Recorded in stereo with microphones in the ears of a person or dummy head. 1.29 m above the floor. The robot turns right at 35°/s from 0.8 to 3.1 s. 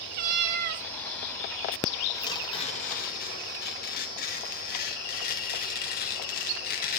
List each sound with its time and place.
0.1 s a cat meowing: 55° right (ahead or behind), 1.0 m
2.1 s tearing paper: 20° left, 1.9 m; by 7.0 s 55° left, 1.9 m